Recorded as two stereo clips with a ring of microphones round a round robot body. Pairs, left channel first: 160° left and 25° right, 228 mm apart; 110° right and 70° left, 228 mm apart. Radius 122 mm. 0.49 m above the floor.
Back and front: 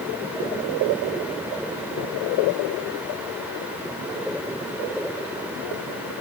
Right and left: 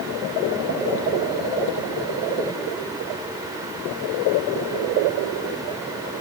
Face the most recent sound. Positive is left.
No sound to turn to.